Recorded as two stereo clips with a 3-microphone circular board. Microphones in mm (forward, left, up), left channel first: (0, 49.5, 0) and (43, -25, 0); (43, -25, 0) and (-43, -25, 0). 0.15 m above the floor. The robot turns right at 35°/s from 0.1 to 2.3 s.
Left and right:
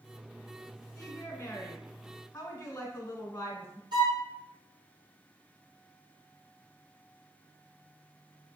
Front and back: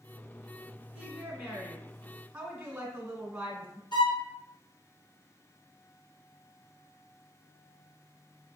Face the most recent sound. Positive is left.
turn(degrees=-30)